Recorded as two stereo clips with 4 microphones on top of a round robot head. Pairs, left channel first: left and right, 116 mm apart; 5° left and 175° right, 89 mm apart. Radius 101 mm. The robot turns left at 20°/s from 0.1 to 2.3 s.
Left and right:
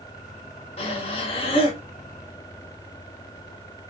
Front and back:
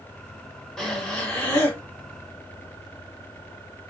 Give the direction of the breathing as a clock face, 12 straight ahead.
9 o'clock.